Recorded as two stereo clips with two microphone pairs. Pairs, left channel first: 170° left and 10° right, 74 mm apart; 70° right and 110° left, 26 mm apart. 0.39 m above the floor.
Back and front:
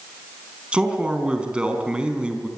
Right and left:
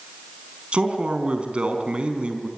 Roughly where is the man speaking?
Ahead left.